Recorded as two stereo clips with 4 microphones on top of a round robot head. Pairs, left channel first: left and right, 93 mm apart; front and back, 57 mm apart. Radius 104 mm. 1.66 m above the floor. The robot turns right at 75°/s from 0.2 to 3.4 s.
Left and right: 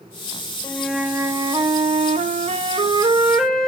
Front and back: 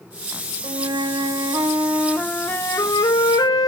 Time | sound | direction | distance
0.6 | a flute | 155° left | 0.6 m